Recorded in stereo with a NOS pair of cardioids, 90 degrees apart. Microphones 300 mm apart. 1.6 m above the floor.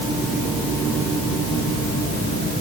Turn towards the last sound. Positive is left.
No sound to turn to.